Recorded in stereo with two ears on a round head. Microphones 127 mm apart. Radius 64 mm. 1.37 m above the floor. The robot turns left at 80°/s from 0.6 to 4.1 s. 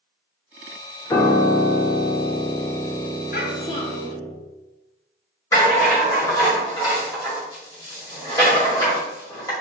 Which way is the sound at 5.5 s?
25° left (ahead or behind).